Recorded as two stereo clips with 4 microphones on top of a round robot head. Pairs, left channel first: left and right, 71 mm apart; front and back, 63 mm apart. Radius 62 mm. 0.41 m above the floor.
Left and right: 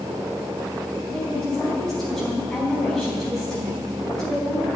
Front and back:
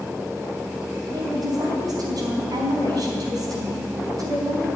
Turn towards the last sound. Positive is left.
turn(degrees=175)